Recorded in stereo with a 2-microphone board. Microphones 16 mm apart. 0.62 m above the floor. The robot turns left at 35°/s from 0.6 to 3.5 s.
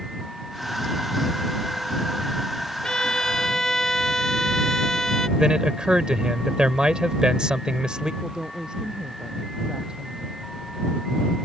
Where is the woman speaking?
55° right (ahead or behind).